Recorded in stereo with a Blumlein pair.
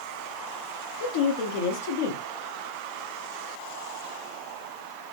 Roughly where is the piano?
I don't hear a piano.